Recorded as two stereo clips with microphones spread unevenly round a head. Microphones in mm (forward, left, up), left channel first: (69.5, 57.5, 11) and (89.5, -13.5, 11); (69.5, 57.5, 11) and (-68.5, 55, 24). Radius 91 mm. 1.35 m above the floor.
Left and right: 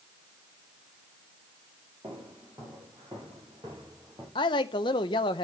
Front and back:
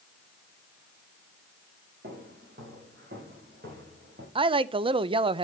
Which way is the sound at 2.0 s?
135° right.